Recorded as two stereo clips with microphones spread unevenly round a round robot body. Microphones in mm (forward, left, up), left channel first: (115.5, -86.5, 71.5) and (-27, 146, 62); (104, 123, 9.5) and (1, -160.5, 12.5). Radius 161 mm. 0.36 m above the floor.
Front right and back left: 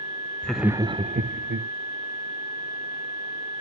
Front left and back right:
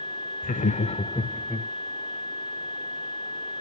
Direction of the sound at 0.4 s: 30° left.